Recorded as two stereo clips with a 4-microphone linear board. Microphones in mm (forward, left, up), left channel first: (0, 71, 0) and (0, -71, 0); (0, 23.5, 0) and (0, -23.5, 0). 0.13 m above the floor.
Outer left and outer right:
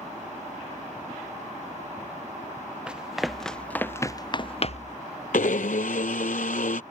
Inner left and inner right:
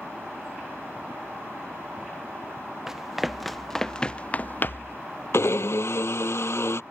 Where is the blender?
70° left (ahead or behind).